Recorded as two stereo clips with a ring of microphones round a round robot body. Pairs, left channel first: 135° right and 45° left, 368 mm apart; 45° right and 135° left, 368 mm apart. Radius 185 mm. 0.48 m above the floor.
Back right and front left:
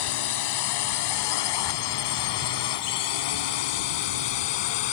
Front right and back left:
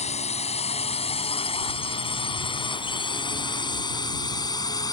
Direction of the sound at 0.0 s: 120° right.